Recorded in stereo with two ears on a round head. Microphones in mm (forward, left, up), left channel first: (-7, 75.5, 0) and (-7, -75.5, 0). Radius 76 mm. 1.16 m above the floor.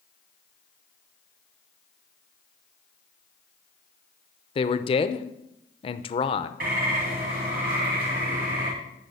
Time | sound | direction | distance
4.5 | a man speaking | 35° left (ahead or behind) | 0.6 m
6.6 | a bird | 60° right (ahead or behind) | 3 m